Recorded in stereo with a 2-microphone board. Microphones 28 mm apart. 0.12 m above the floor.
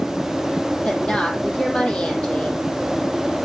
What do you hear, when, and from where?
0.8 s a woman speaking: 50° left (ahead or behind), 3.5 m